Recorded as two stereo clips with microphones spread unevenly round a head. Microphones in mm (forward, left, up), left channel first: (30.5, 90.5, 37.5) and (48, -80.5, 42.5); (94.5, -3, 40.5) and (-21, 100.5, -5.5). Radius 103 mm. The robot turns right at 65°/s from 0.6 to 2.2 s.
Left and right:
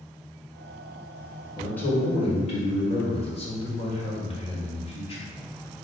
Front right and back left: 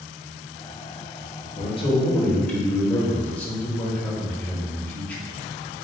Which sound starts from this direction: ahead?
A man speaking, at 1.6 s.